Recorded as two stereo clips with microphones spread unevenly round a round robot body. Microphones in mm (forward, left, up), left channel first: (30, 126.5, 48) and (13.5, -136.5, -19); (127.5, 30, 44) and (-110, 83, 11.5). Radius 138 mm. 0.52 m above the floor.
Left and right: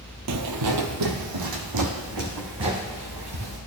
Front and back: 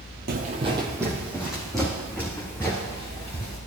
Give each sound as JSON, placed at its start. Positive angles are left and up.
{"t": 0.3, "sound": "footsteps", "azimuth_deg": -135, "distance_m": 0.9}